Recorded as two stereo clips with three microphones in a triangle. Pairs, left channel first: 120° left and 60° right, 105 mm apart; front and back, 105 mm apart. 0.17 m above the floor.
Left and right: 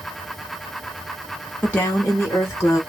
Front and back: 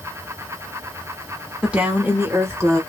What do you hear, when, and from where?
1.6 s a woman speaking: 120° left, 1.2 m; by 2.8 s 150° left, 1.5 m